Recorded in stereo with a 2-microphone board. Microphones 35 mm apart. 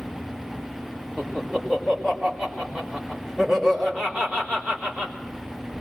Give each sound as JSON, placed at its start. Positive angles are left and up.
{"t": 1.2, "sound": "laughter", "side_deg": -5, "distance_m": 4.5}